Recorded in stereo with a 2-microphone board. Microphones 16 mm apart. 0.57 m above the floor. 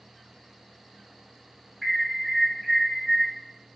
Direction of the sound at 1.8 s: 5° left (ahead or behind).